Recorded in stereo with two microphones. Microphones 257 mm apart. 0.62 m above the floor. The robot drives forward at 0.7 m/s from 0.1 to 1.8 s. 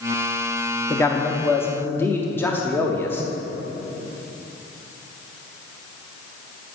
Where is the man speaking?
10° left (ahead or behind), 0.5 m.